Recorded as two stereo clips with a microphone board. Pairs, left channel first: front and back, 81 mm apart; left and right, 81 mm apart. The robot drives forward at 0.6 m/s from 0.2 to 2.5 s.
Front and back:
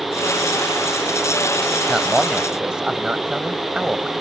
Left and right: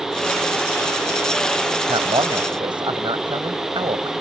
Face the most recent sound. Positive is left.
turn(degrees=-100)